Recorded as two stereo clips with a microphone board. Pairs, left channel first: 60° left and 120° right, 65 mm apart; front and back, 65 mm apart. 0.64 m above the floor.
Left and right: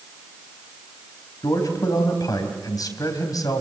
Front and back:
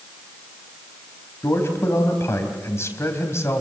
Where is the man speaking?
45° left, 4 m.